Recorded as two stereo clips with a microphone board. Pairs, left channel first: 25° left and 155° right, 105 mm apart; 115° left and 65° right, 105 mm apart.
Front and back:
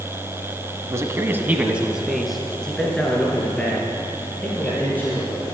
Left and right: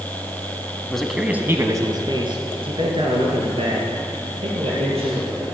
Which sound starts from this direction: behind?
A man speaking, at 0.9 s.